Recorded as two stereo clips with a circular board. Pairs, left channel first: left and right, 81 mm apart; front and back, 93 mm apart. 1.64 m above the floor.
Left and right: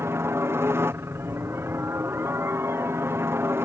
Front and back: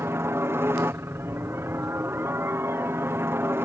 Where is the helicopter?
130° right.